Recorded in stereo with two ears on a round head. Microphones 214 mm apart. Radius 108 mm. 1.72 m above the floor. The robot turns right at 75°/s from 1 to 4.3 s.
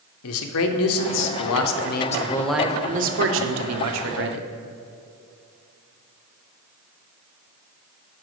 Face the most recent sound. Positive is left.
turn(degrees=-45)